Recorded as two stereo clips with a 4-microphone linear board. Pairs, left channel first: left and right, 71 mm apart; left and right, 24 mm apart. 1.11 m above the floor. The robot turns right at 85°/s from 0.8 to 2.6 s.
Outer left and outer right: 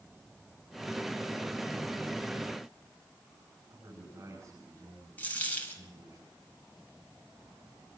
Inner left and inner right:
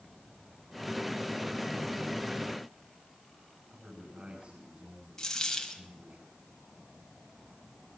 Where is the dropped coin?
20° left (ahead or behind), 3 m.